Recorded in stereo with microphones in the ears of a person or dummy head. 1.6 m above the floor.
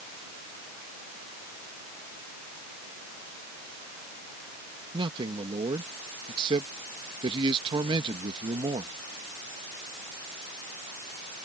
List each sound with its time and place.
4.9 s a man speaking: 25° right (ahead or behind)